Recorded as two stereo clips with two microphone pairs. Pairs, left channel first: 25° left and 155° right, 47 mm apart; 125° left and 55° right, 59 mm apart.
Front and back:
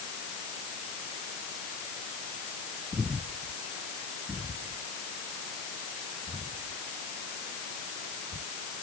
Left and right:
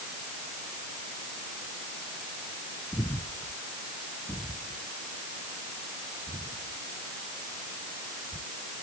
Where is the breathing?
150° left.